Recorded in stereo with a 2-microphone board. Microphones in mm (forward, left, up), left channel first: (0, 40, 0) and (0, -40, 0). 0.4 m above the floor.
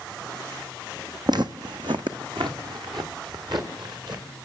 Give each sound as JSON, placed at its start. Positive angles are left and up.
{"t": 1.3, "sound": "footsteps", "side_deg": -60, "distance_m": 0.9}